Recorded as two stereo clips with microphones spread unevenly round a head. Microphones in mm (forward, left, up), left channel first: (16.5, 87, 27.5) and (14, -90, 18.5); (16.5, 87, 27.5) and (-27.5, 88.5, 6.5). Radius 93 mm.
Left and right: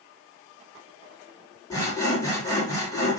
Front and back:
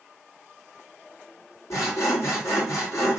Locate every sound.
1.7 s sawing: 15° left, 3 m